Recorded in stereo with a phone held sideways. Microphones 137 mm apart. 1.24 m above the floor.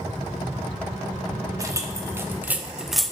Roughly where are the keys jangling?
Right.